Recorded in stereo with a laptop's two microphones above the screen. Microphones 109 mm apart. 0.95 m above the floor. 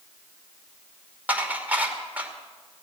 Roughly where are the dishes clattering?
Centre.